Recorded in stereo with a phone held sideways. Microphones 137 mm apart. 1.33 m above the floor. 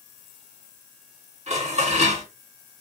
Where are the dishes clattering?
55° right (ahead or behind), 2.5 m.